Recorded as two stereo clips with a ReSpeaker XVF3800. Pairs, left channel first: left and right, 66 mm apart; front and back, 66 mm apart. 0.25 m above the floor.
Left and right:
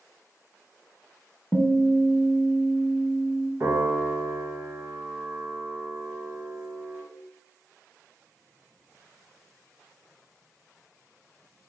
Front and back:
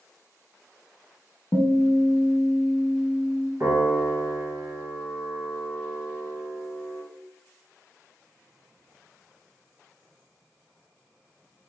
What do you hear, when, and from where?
1.5 s a guitar: 20° left, 0.5 m
3.6 s a piano: 140° right, 1.5 m